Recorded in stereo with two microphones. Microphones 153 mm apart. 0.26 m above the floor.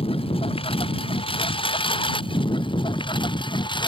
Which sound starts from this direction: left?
A lawn mower, at 0.0 s.